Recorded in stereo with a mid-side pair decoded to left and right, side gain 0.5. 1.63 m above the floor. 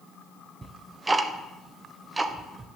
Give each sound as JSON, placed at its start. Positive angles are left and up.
{"t": 0.6, "sound": "ticking", "azimuth_deg": -25, "distance_m": 1.2}